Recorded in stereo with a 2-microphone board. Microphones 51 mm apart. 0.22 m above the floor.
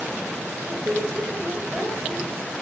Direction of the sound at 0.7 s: 20° right (ahead or behind).